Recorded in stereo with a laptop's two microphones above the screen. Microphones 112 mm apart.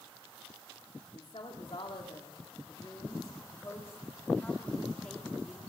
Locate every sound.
1.1 s a woman speaking: 65° left (ahead or behind), 3 m; by 5.6 s 5° left (ahead or behind), 2.5 m